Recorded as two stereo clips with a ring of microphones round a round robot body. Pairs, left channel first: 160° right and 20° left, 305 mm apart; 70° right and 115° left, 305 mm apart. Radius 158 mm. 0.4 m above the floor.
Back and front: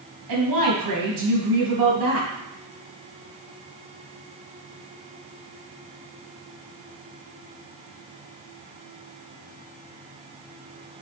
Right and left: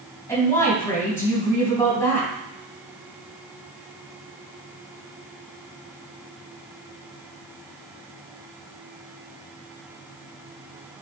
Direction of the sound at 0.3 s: 15° left.